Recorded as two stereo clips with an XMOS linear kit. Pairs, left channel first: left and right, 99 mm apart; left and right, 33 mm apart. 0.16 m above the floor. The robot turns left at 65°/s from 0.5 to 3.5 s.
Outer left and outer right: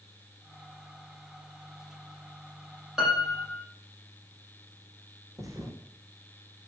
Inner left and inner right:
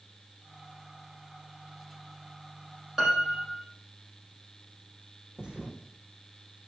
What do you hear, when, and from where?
3.0 s a piano: 5° right, 5.5 m; by 3.6 s 40° right, 5.5 m
5.4 s a thud: 30° right (ahead or behind), 3 m